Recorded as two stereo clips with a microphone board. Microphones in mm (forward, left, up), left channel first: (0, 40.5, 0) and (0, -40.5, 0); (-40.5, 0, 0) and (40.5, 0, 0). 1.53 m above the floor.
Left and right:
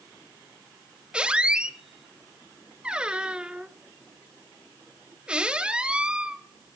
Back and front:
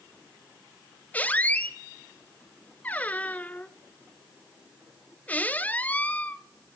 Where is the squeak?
150° right, 0.7 m.